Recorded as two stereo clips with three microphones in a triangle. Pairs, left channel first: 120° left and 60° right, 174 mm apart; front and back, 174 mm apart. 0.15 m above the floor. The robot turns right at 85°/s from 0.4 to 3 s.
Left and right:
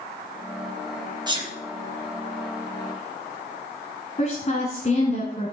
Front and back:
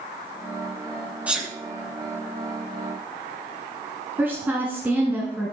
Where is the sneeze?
105° right, 2 m; by 1.5 s 85° right, 2 m.